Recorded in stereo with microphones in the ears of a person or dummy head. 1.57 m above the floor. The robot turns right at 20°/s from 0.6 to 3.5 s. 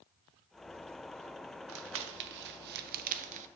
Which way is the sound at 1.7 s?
70° right (ahead or behind).